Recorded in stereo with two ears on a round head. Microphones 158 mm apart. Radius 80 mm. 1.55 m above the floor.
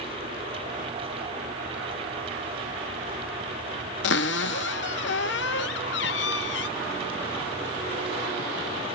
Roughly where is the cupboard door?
Left.